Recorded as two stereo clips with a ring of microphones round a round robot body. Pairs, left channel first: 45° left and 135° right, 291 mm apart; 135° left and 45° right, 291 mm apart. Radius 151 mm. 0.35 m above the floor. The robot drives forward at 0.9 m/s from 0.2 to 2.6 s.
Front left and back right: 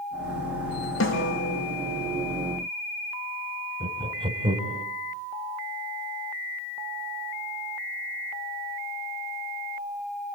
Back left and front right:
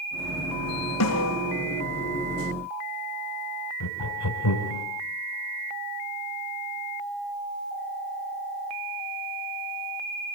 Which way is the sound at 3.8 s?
155° left.